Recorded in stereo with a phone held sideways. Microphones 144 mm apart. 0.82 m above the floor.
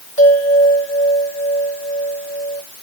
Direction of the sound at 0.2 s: 60° left (ahead or behind).